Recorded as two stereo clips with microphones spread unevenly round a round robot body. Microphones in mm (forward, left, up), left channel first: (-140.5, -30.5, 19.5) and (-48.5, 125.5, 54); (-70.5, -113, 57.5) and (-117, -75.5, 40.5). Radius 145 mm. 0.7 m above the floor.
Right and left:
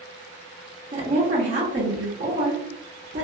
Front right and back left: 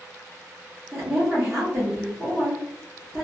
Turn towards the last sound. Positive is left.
turn(degrees=100)